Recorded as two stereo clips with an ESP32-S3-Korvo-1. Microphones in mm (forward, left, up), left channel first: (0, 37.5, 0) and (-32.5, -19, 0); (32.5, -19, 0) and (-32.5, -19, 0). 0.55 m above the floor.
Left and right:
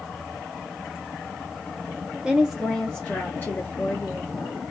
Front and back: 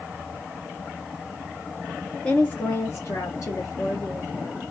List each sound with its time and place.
2.2 s a woman speaking: 60° right, 0.7 m; by 4.6 s 30° left, 1.4 m